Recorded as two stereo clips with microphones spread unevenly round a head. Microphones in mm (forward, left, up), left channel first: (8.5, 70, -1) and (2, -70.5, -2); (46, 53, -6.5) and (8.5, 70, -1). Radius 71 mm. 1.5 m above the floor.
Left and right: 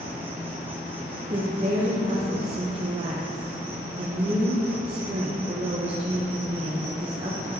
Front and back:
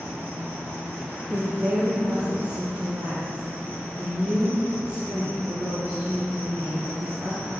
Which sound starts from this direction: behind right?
A woman speaking, at 1.3 s.